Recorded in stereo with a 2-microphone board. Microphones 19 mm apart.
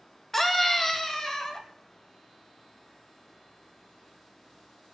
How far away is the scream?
About 2 m.